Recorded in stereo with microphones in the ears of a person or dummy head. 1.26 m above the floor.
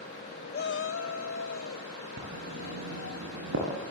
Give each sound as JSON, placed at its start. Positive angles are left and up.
{"t": 0.5, "sound": "a shout", "side_deg": 45, "distance_m": 0.5}
{"t": 2.2, "sound": "writing", "side_deg": -85, "distance_m": 8.0}